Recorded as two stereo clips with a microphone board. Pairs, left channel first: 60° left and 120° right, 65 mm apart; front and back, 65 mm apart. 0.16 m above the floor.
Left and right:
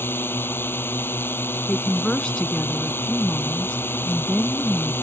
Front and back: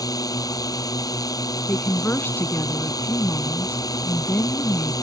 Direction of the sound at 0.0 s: 5° left.